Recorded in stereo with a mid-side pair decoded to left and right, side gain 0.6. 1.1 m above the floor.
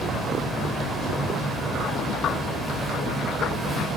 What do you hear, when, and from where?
0.0 s a fan: 5° left, 8 m